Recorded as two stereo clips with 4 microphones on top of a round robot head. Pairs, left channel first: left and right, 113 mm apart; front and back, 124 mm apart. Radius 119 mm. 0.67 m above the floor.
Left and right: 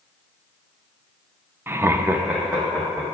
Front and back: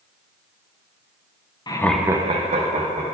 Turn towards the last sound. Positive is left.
turn(degrees=-175)